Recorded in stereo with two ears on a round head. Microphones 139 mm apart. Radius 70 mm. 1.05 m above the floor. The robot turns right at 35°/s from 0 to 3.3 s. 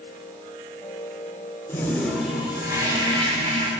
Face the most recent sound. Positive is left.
turn(degrees=-140)